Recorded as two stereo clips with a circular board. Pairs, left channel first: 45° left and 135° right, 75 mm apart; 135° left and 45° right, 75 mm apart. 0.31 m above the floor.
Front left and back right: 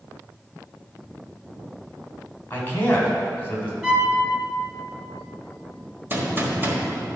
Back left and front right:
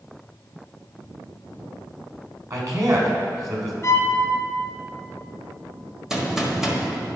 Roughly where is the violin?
Behind left.